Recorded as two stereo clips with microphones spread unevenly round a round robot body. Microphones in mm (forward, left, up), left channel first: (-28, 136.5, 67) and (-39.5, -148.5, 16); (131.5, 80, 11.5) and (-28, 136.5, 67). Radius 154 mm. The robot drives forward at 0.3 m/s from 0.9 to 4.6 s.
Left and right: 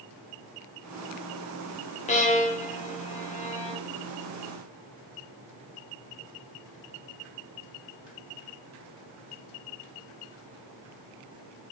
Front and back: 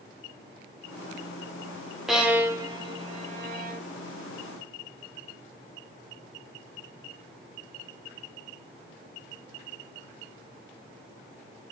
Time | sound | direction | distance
2.1 | a violin | 30° left | 0.6 m